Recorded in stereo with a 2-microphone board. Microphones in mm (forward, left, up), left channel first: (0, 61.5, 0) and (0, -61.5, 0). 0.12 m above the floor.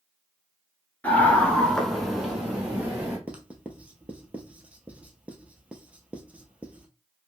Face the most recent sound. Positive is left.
turn(degrees=-10)  # may be behind; listen again after turning